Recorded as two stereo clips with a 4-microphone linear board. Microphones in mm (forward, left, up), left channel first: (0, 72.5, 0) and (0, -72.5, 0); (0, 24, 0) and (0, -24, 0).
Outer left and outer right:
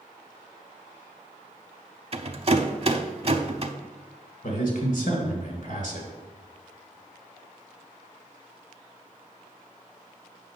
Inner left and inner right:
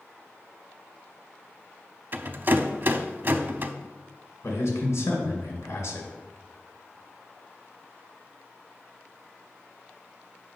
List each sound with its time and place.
2.1 s a rattle: 45° right (ahead or behind), 0.6 m
4.4 s a man speaking: 75° left (ahead or behind), 2 m